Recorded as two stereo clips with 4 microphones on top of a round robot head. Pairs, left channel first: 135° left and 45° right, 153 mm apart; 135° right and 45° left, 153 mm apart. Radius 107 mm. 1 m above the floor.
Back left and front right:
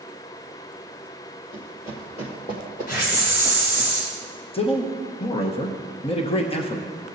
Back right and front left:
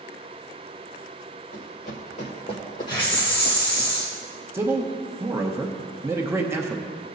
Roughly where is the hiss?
Behind.